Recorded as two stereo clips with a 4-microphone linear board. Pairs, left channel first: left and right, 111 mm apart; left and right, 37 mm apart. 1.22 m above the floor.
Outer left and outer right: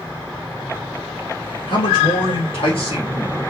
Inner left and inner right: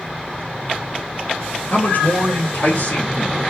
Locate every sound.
1.7 s a man speaking: 55° left (ahead or behind), 2 m; by 3.4 s 65° left (ahead or behind), 3.5 m